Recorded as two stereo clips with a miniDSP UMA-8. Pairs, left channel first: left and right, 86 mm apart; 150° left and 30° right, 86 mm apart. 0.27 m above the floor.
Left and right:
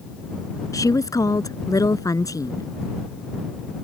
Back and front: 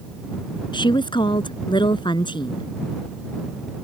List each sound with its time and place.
0.7 s a woman speaking: 135° left